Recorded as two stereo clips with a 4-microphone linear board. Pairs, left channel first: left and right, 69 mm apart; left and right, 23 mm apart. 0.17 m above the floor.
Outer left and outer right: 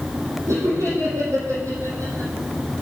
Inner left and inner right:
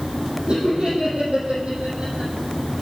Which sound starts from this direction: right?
Laughter, at 0.5 s.